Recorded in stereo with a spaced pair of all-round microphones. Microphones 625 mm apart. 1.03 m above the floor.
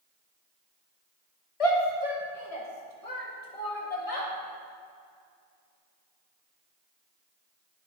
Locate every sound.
1.6 s a shout: 60° left (ahead or behind), 1.3 m; by 4.3 s 65° left (ahead or behind), 2 m